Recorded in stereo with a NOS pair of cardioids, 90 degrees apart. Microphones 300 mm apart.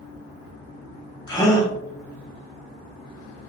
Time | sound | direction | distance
1.3 | a gasp | 15° left | 1.0 m